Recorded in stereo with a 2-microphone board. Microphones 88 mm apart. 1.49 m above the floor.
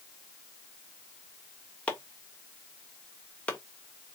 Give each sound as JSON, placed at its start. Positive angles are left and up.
{"t": 1.9, "sound": "chopping", "side_deg": 10, "distance_m": 1.2}